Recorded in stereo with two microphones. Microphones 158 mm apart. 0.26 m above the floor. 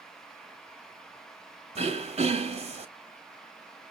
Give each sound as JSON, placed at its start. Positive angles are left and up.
{"t": 1.8, "sound": "throat clearing", "side_deg": -45, "distance_m": 0.9}